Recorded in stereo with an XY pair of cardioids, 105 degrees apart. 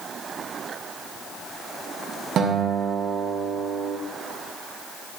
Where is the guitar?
65° right, 1.7 m.